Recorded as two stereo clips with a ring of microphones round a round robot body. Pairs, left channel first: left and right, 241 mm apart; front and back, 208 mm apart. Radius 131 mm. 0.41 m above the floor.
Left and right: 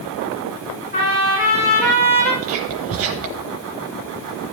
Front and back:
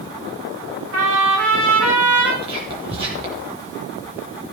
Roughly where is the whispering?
Behind right.